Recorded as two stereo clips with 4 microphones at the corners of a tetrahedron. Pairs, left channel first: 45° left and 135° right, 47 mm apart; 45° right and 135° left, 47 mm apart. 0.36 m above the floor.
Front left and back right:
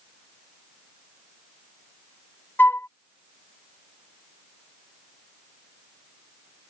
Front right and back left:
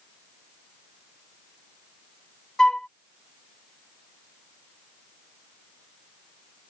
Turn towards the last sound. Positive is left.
turn(degrees=25)